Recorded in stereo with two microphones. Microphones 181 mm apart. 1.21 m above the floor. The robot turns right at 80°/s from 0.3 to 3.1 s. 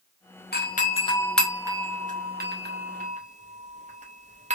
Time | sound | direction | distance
0.5 | a doorbell | 60° left (ahead or behind) | 0.7 m